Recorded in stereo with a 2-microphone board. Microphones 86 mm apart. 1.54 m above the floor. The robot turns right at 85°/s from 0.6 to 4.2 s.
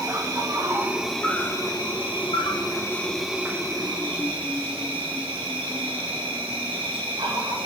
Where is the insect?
45° right, 1.8 m; by 7.7 s 100° right, 1.8 m.